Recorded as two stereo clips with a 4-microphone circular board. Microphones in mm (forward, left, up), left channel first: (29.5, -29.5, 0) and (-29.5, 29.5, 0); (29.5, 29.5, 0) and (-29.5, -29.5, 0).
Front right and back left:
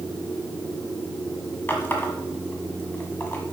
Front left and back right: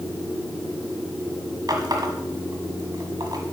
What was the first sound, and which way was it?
A running tap, 105° right.